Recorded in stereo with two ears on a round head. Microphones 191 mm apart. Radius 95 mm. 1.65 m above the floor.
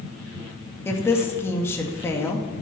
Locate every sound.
0.8 s a woman speaking: 10° left (ahead or behind), 2.5 m